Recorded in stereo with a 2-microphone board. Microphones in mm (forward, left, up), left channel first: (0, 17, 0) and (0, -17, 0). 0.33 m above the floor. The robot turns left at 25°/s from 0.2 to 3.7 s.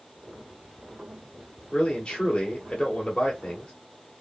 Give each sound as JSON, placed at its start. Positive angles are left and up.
{"t": 1.7, "sound": "a man speaking", "side_deg": 20, "distance_m": 1.3}